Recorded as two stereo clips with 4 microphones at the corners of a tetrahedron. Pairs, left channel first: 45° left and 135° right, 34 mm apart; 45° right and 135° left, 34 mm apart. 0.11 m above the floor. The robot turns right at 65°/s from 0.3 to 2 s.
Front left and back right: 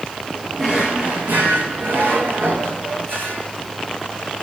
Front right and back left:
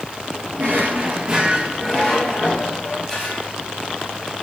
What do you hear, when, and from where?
0.6 s a drawer: 140° left, 2.5 m; by 3.5 s 125° right, 2.5 m